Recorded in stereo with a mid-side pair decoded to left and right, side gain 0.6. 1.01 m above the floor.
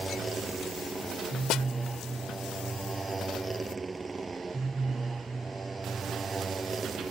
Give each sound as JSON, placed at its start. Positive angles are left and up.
{"t": 0.0, "sound": "a motorcycle", "azimuth_deg": -20}
{"t": 1.5, "sound": "a snare drum", "azimuth_deg": 60}